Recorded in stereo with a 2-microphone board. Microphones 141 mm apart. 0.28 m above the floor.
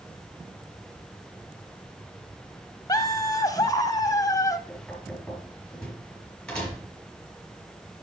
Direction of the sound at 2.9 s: 25° left (ahead or behind).